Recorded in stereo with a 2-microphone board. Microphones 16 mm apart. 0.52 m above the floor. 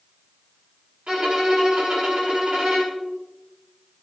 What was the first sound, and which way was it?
A violin, 75° right (ahead or behind).